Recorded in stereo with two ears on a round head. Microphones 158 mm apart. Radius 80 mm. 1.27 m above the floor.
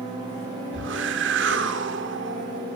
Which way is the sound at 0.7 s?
75° right (ahead or behind).